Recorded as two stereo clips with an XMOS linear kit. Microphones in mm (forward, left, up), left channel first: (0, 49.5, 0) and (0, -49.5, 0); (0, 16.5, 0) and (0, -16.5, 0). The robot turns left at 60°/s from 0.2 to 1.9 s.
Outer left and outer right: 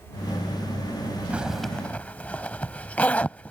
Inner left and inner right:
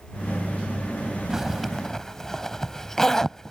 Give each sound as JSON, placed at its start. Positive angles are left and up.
{"t": 1.3, "sound": "a zipper", "side_deg": -15}